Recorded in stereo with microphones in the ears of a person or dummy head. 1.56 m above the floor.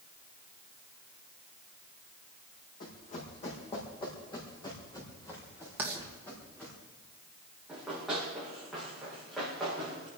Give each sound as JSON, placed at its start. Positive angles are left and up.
{"t": 2.8, "sound": "running footsteps", "side_deg": 45, "distance_m": 4.5}
{"t": 5.8, "sound": "writing", "side_deg": -10, "distance_m": 2.5}
{"t": 7.7, "sound": "running footsteps", "side_deg": 0, "distance_m": 8.5}